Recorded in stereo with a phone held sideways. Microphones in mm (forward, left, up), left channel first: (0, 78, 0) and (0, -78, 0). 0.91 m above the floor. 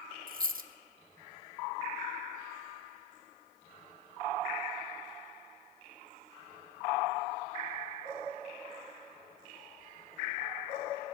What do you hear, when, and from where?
0.3 s a dropped coin: 65° right (ahead or behind), 0.6 m